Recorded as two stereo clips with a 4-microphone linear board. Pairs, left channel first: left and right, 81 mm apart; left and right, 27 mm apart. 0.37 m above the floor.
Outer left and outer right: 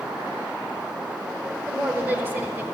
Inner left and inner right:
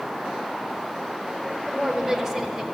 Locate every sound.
1.7 s a woman speaking: 20° right (ahead or behind), 1.0 m